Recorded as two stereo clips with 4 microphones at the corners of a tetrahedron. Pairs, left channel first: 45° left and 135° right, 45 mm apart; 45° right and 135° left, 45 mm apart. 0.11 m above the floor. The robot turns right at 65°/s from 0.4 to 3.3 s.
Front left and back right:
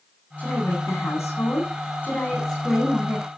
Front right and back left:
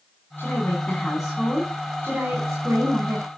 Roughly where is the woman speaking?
Ahead.